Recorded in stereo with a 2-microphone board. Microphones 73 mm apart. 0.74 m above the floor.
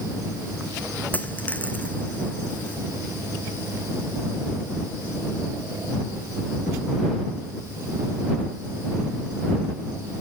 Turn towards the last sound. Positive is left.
turn(degrees=25)  # may be behind; listen again after turning